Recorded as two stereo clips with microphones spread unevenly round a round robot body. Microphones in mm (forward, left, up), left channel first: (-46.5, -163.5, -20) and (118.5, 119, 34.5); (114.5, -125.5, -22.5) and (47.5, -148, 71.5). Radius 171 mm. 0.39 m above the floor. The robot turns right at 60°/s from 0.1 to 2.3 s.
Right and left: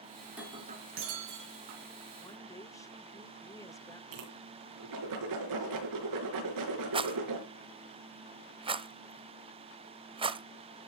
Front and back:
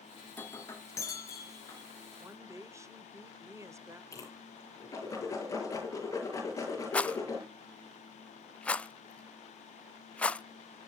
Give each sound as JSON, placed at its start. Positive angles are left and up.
{"t": 0.3, "sound": "breaking glass", "azimuth_deg": -35, "distance_m": 3.0}
{"t": 2.2, "sound": "a woman speaking", "azimuth_deg": -60, "distance_m": 1.1}
{"t": 4.1, "sound": "a whoosh", "azimuth_deg": 35, "distance_m": 5.5}
{"t": 6.9, "sound": "a rattle", "azimuth_deg": -15, "distance_m": 0.9}